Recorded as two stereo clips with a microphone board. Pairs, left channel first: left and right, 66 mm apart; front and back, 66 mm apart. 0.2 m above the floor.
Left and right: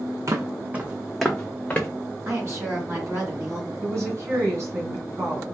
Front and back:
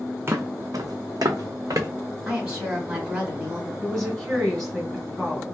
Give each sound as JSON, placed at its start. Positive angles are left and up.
{"t": 0.3, "sound": "footsteps", "azimuth_deg": -130, "distance_m": 0.6}
{"t": 2.2, "sound": "a woman speaking", "azimuth_deg": -115, "distance_m": 1.8}
{"t": 3.8, "sound": "a woman speaking", "azimuth_deg": -80, "distance_m": 2.0}